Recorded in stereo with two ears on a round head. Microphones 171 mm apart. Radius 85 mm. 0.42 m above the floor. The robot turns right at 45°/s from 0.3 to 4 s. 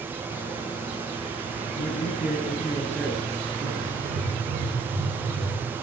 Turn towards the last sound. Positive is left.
turn(degrees=-60)  # may be behind; listen again after turning